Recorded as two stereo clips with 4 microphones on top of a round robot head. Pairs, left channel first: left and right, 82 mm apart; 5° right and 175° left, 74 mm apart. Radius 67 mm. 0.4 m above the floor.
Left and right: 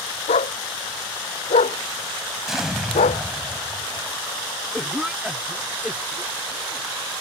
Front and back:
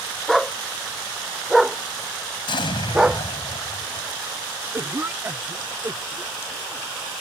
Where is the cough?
160° right.